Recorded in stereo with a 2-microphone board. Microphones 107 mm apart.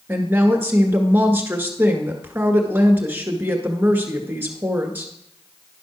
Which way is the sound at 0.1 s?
20° right (ahead or behind).